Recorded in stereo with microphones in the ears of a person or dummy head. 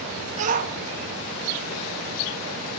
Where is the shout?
40° right (ahead or behind), 1.3 m; by 2.8 s 75° right (ahead or behind), 4 m.